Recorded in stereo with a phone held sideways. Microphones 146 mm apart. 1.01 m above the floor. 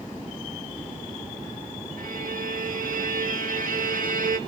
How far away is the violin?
About 1.5 m.